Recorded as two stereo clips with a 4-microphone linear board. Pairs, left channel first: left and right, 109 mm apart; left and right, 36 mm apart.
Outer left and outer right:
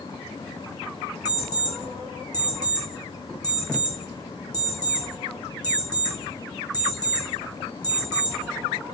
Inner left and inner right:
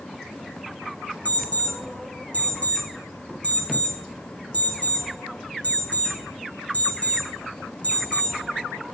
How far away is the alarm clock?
About 3 m.